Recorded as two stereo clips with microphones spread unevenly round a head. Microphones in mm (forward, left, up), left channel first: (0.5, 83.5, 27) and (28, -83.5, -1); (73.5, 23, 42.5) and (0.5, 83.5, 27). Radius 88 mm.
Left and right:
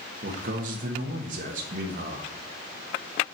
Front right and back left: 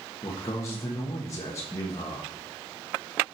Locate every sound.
0.2 s a man speaking: 105° right, 1.4 m